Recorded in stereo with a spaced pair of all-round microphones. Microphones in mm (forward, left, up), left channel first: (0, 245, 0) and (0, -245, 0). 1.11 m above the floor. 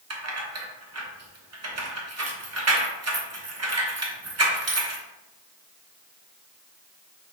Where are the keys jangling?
30° right (ahead or behind), 0.7 m.